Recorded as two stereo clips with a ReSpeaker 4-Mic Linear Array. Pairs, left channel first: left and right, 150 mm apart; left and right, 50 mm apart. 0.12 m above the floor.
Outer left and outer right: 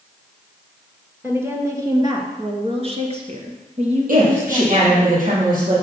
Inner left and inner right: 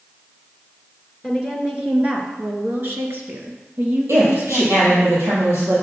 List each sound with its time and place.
1.2 s a woman speaking: 15° right (ahead or behind), 2 m; by 5.1 s 45° right (ahead or behind), 3 m
4.1 s a woman speaking: 65° right (ahead or behind), 4.5 m